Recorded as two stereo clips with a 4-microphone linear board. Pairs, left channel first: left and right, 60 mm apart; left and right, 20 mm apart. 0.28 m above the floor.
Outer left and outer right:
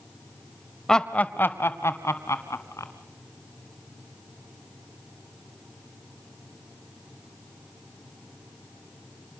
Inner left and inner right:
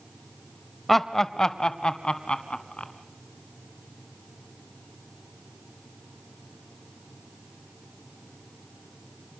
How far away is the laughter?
About 0.9 m.